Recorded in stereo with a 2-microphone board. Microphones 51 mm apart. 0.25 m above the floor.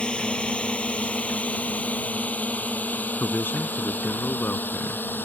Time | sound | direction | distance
0.0 | a drone | 20° left (ahead or behind) | ?
3.2 | a man speaking | 45° left (ahead or behind) | ?